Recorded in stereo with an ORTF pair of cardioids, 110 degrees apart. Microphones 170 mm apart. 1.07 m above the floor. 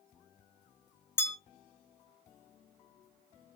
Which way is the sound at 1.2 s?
15° left.